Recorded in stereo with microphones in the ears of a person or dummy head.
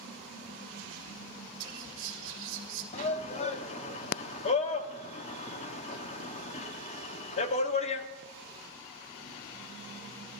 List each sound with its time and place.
1.6 s whispering: 70° right (ahead or behind), 1.7 m
2.9 s a shout: 35° left (ahead or behind), 0.7 m